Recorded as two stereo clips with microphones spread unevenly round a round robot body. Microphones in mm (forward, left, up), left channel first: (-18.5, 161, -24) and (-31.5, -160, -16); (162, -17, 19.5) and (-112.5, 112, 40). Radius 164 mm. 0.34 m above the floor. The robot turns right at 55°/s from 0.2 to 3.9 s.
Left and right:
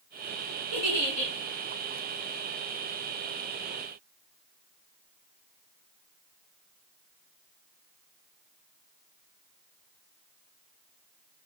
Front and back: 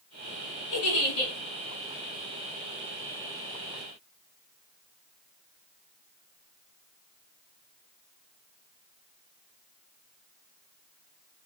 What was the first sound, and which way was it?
A giggle, 10° right.